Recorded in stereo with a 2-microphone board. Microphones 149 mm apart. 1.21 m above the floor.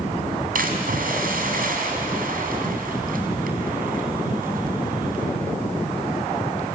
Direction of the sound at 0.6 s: 70° right (ahead or behind).